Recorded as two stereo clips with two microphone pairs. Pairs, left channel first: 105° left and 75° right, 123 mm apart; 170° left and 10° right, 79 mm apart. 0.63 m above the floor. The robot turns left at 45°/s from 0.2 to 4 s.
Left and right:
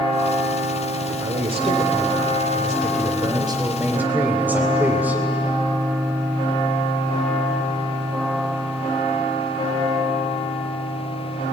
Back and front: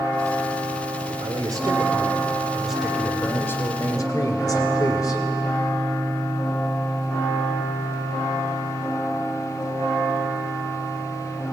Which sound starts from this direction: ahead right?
A man speaking, at 1.2 s.